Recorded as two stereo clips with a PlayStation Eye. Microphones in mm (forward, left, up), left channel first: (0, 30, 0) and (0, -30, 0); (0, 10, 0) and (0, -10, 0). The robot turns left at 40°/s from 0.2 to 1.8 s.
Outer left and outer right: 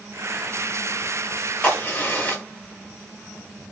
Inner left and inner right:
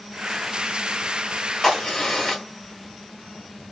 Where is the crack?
25° left (ahead or behind), 1.6 m.